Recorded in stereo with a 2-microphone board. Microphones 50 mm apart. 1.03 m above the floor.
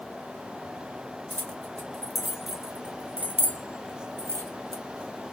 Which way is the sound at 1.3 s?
20° left (ahead or behind).